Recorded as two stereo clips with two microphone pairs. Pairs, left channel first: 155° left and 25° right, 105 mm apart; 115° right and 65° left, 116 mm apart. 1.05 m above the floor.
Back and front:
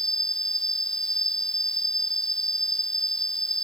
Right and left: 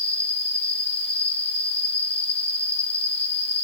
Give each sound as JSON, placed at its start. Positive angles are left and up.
{"t": 0.0, "sound": "an insect", "azimuth_deg": -125}